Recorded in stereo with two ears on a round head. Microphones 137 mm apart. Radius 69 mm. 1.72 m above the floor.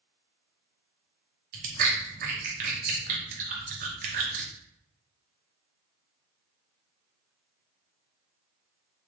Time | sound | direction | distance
1.5 | chewing | 60° right (ahead or behind) | 0.8 m